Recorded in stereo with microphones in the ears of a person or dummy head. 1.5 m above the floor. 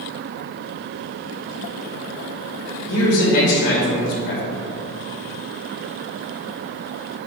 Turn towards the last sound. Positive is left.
turn(degrees=65)  # may be behind; listen again after turning